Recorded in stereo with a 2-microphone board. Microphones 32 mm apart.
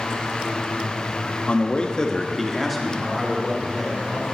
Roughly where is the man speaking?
Left.